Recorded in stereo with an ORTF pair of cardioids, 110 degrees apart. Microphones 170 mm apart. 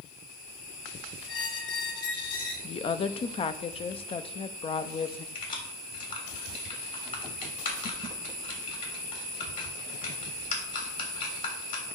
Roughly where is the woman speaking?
Ahead left.